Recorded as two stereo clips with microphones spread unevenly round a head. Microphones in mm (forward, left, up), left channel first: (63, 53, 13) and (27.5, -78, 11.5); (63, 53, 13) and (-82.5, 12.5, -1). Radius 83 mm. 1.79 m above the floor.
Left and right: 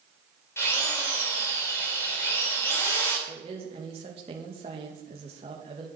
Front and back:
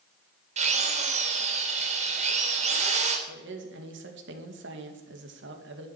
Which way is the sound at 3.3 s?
165° right.